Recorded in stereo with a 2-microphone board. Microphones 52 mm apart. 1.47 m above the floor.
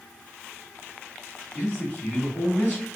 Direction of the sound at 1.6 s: 15° left (ahead or behind).